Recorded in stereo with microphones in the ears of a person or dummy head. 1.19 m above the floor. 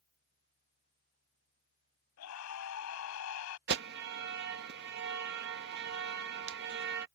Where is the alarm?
60° right (ahead or behind).